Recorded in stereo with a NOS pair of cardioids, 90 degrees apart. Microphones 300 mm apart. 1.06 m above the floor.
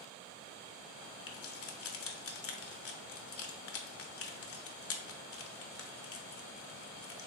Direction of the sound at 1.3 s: 45° left.